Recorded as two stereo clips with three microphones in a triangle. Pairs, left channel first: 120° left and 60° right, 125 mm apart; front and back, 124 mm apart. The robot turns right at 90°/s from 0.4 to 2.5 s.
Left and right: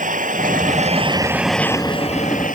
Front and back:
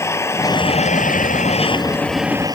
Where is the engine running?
70° right; by 2.6 s 120° left.